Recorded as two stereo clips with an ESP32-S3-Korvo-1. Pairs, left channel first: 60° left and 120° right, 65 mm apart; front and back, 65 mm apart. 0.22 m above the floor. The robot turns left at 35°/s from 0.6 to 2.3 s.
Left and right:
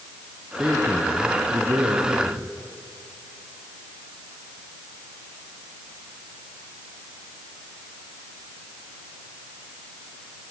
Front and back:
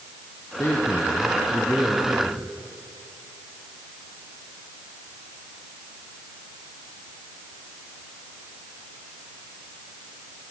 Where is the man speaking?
40° right, 3 m; by 2.6 s 100° right, 3 m.